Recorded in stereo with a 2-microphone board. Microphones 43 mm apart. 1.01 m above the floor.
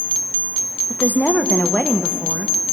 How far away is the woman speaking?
About 0.6 m.